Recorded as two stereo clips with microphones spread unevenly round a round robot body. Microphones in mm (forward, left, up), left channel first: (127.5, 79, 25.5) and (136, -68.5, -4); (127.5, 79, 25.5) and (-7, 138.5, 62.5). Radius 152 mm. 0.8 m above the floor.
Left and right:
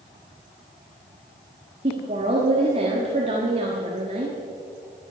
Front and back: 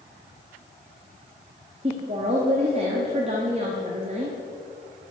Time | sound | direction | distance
1.8 | a woman speaking | 140° right | 1.1 m